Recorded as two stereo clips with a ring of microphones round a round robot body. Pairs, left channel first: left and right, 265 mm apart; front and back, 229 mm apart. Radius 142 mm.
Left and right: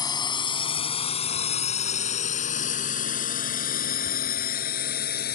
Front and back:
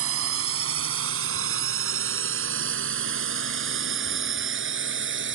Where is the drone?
165° left; by 5.4 s 145° left.